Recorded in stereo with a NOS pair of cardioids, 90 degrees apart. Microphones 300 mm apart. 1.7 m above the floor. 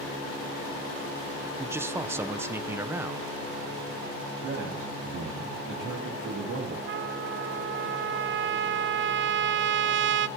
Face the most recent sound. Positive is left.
turn(degrees=-40)